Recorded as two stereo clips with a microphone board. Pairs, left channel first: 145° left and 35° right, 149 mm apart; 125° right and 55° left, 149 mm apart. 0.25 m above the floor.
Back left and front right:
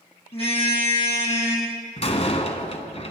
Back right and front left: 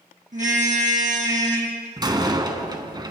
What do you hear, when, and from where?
0.3 s a car horn: 95° left, 4 m
2.0 s a door slam: 110° left, 1.7 m